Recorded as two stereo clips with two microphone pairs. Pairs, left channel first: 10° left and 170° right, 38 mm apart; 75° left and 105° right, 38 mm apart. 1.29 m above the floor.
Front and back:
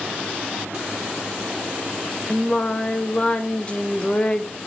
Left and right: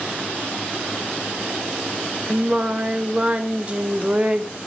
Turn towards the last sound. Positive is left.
turn(degrees=-50)